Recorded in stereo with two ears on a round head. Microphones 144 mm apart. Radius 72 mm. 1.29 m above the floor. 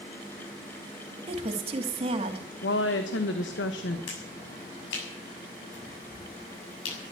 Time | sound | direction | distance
1.3 | a woman speaking | 35° right (ahead or behind) | 2.5 m
2.6 | a woman speaking | 80° left | 1.3 m
4.1 | a finger snap | 85° left | 7 m